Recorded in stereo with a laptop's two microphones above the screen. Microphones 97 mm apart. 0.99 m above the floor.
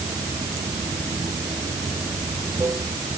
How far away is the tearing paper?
No tearing paper in this recording.